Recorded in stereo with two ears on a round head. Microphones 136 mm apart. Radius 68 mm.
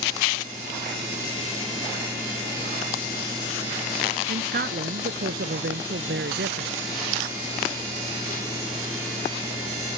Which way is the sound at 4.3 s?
60° right (ahead or behind).